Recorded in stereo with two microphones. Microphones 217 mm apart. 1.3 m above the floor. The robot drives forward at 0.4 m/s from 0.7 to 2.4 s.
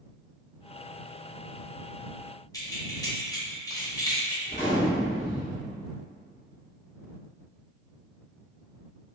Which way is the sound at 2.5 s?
15° left (ahead or behind).